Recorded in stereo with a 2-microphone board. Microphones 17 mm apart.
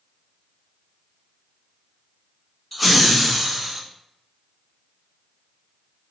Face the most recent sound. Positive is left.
turn(degrees=-15)  # may be behind; listen again after turning